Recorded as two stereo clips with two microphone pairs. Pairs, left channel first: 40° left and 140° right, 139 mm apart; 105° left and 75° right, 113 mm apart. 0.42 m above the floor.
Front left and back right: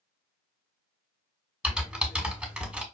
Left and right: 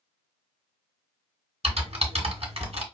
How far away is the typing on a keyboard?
About 1.4 m.